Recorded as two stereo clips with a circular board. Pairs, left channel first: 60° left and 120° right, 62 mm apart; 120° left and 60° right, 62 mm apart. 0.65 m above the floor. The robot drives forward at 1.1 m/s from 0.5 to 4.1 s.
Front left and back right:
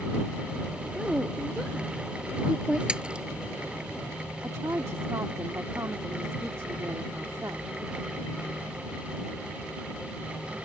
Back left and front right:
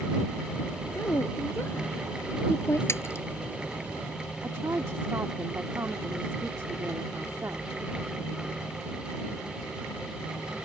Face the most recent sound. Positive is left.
turn(degrees=-95)